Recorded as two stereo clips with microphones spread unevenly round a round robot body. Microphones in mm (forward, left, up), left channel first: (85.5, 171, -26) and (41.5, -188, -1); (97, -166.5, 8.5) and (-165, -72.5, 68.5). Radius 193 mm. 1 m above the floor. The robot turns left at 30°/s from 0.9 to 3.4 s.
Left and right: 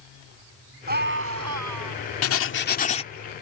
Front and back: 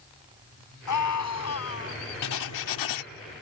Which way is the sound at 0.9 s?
30° right.